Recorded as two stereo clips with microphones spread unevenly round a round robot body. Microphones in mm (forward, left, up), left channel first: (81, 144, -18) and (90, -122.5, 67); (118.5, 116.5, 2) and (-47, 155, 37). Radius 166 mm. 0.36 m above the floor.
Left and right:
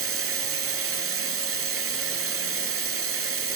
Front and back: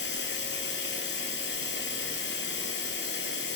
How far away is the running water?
About 1.6 m.